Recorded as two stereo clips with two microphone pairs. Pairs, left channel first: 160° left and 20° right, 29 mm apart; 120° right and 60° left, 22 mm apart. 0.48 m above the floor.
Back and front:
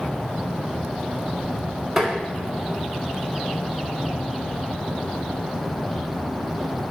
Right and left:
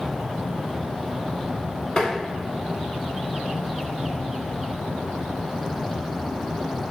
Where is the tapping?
95° right, 0.6 m.